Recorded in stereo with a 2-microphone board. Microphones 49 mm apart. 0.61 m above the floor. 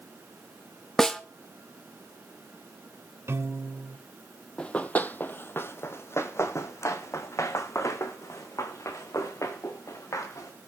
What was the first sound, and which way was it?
A snare drum, 5° left (ahead or behind).